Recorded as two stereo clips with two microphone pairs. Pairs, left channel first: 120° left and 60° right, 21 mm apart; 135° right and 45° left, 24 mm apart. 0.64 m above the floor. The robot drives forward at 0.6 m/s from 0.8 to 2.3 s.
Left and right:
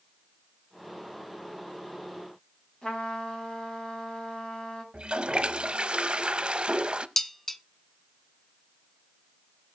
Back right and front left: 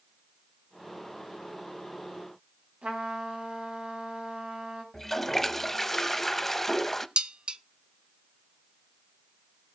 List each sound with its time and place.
2.8 s a trumpet: 70° left, 4 m
4.9 s a toilet flushing: 60° right, 0.6 m
7.2 s dishes clattering: 50° left, 0.6 m